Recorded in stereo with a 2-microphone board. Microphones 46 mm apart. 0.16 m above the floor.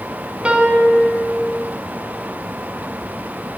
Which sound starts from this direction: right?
A piano, at 0.5 s.